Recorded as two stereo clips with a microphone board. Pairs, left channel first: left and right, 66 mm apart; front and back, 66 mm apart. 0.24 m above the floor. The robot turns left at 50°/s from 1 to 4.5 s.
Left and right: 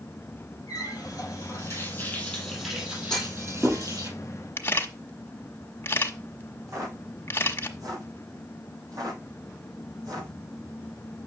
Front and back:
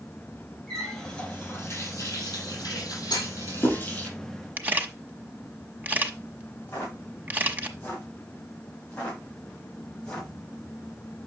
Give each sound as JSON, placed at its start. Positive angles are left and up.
{"t": 0.7, "sound": "a running tap", "azimuth_deg": 85, "distance_m": 4.5}
{"t": 3.1, "sound": "a clunk", "azimuth_deg": 10, "distance_m": 4.0}
{"t": 4.6, "sound": "a camera shutter", "azimuth_deg": 130, "distance_m": 1.2}
{"t": 6.7, "sound": "footsteps", "azimuth_deg": -60, "distance_m": 6.0}